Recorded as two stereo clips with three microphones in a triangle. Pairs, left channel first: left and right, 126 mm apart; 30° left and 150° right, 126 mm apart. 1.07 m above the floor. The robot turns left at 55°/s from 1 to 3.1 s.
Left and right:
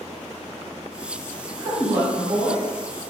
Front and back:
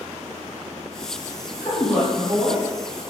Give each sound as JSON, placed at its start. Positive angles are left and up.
{"t": 1.6, "sound": "a woman speaking", "azimuth_deg": -35, "distance_m": 1.5}